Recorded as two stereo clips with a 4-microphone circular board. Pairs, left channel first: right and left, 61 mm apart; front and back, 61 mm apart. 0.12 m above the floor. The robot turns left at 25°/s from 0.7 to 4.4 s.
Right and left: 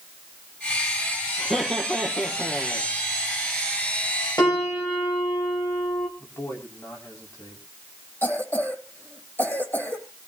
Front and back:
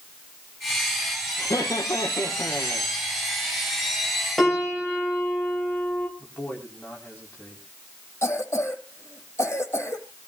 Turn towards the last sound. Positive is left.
turn(degrees=-40)